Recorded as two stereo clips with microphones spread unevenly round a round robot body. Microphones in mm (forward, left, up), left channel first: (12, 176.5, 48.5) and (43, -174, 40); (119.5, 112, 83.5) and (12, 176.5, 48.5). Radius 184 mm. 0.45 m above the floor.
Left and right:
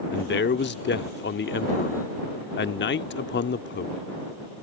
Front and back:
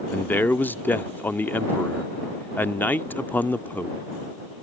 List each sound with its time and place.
0.1 s a man speaking: 60° left